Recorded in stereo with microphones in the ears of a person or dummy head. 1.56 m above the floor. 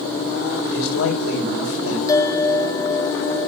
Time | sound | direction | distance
0.7 | a man speaking | 85° left | 5 m
2.1 | a bell | 15° left (ahead or behind) | 0.9 m